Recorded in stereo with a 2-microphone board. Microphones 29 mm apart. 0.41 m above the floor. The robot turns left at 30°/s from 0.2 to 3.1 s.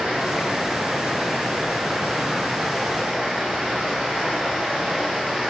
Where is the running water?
45° right, 4 m; by 5.5 s 135° right, 4 m.